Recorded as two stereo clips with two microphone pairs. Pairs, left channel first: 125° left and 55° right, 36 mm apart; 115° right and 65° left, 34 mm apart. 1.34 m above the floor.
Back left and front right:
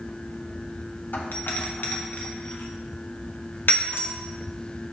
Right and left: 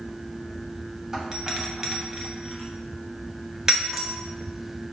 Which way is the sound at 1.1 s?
135° left.